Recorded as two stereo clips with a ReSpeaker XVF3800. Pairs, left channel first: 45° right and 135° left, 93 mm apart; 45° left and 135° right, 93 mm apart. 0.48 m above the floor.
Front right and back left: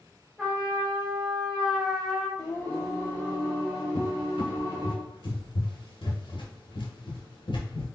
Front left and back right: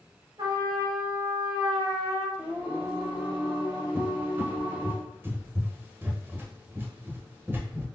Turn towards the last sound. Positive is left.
turn(degrees=-70)